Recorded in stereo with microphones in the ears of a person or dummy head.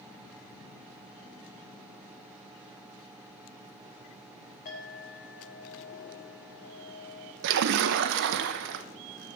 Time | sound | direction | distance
4.7 | a clink | 50° left (ahead or behind) | 5 m
7.4 | a splash | 65° right (ahead or behind) | 0.7 m